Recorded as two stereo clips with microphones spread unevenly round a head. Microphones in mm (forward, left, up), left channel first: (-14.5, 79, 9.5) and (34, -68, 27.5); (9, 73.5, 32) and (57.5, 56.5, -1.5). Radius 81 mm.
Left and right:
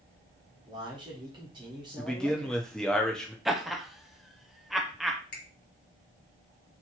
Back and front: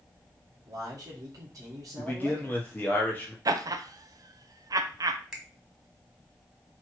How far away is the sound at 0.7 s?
About 1.4 m.